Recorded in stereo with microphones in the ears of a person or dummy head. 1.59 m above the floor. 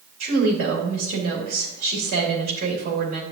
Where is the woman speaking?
45° right (ahead or behind), 3 m.